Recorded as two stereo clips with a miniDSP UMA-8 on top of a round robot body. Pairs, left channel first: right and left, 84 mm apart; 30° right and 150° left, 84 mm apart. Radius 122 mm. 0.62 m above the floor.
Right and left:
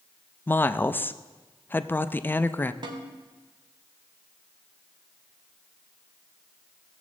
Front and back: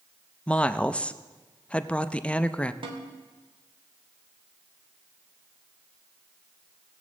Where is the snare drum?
125° left, 1.1 m.